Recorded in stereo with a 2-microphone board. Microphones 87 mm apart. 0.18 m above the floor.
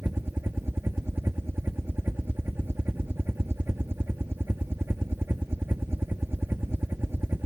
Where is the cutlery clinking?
No cutlery clinking in this recording.